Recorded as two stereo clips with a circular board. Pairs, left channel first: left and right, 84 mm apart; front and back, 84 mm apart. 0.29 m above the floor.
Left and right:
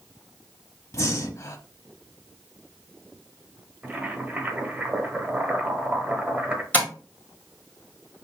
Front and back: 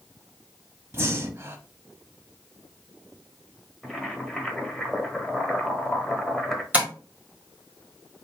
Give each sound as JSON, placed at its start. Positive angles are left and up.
{"t": 0.9, "sound": "breathing", "azimuth_deg": 130, "distance_m": 0.5}
{"t": 3.8, "sound": "boiling", "azimuth_deg": -85, "distance_m": 0.8}
{"t": 6.7, "sound": "tapping", "azimuth_deg": 135, "distance_m": 1.4}